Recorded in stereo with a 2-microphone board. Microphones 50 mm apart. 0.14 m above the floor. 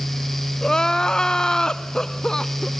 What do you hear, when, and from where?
0.6 s crying: 15° left (ahead or behind), 0.6 m